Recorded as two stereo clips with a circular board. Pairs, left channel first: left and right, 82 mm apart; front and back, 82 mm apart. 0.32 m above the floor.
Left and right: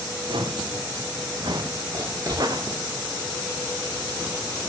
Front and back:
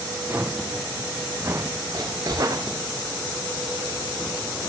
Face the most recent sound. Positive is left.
turn(degrees=-140)